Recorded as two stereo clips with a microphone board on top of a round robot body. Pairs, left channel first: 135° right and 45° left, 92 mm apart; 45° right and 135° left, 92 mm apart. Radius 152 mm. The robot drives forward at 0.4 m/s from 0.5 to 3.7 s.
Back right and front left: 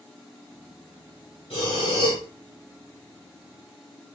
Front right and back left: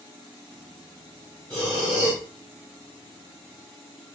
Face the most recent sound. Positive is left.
turn(degrees=-165)